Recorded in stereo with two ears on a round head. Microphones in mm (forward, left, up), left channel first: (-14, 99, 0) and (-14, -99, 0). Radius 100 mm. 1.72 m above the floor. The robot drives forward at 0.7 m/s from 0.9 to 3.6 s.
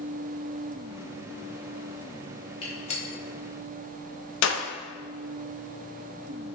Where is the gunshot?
25° left (ahead or behind), 1.1 m; by 4.6 s 55° left (ahead or behind), 0.5 m.